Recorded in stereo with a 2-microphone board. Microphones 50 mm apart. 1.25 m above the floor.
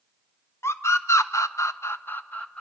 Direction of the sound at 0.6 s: 60° left (ahead or behind).